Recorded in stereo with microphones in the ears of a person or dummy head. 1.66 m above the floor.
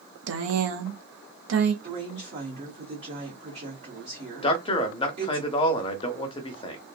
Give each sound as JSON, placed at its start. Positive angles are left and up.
{"t": 0.3, "sound": "a woman speaking", "side_deg": -70, "distance_m": 0.6}
{"t": 1.8, "sound": "a woman speaking", "side_deg": -25, "distance_m": 1.0}
{"t": 4.4, "sound": "a man speaking", "side_deg": 30, "distance_m": 0.7}